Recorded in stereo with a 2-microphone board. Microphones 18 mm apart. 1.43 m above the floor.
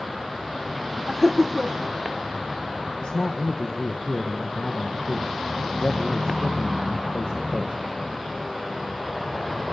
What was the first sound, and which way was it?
Laughter, 30° right (ahead or behind).